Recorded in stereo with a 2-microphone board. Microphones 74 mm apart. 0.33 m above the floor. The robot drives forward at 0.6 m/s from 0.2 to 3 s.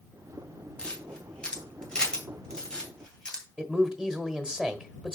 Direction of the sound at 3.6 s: 10° right (ahead or behind).